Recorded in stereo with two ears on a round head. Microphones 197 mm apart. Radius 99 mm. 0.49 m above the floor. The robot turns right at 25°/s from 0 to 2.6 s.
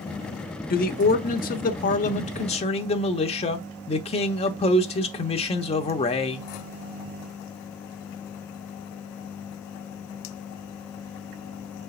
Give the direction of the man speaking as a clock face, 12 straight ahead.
9 o'clock.